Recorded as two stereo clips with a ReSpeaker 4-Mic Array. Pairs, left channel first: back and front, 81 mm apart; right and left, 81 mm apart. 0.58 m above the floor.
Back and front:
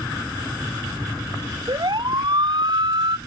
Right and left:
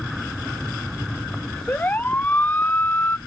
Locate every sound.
1.7 s a siren: 25° right